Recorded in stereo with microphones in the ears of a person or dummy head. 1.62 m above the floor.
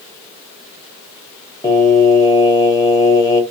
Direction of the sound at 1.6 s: 20° left (ahead or behind).